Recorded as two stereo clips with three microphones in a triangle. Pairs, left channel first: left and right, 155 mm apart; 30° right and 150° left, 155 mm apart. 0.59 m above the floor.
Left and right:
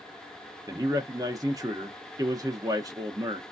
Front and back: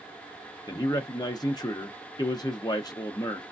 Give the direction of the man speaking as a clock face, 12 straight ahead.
2 o'clock.